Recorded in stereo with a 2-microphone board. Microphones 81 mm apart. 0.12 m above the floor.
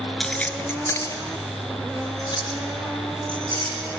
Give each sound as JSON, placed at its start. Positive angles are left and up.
{"t": 0.2, "sound": "keys jangling", "side_deg": 5, "distance_m": 1.1}